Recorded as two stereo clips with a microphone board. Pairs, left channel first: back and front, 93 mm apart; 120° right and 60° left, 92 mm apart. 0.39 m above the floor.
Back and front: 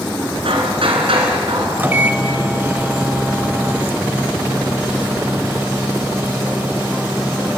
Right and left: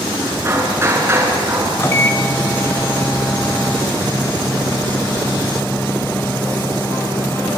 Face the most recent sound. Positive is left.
turn(degrees=-65)